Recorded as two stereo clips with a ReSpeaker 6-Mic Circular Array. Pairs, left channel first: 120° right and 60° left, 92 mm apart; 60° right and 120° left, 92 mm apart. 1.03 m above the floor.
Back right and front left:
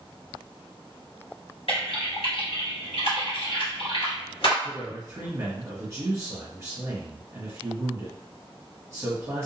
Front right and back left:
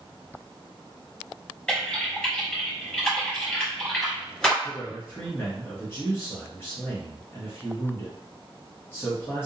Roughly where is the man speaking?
Ahead.